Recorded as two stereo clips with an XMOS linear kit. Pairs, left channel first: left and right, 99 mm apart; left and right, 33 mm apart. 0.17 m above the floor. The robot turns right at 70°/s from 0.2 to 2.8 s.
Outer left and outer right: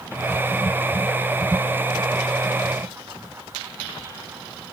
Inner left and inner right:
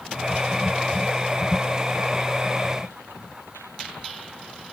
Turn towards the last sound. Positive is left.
No sound to turn to.